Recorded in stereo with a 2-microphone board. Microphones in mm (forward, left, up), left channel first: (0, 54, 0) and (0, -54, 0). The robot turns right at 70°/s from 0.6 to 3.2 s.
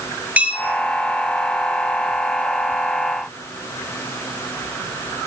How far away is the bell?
About 2.5 m.